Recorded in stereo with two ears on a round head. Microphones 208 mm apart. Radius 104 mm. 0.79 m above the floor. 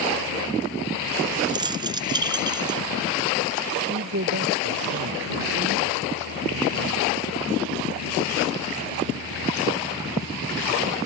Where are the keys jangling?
20° right (ahead or behind).